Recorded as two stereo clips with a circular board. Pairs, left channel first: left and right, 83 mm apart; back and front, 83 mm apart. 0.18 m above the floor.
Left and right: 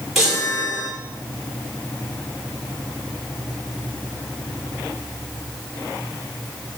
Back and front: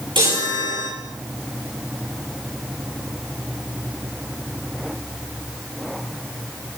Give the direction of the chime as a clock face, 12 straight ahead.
12 o'clock.